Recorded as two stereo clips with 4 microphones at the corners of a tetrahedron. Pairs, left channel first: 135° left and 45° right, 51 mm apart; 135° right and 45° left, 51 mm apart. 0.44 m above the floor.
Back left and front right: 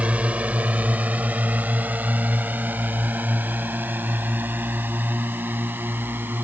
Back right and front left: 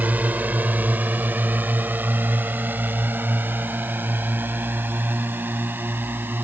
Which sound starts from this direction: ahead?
A drone, at 0.0 s.